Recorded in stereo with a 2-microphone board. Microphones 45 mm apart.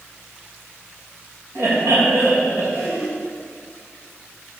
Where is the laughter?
70° right (ahead or behind), 2.5 m.